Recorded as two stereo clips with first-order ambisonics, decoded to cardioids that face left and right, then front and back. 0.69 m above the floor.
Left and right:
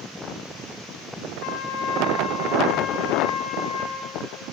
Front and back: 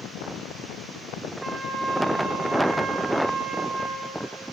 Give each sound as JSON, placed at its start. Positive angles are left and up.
{"t": 1.4, "sound": "a trumpet", "azimuth_deg": 105, "distance_m": 1.4}